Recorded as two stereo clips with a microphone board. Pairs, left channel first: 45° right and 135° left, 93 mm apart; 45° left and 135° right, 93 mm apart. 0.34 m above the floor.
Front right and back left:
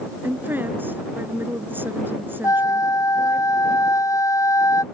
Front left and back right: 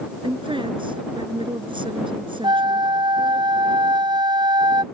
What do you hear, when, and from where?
0.2 s a woman speaking: 155° right
2.4 s a flute: 100° right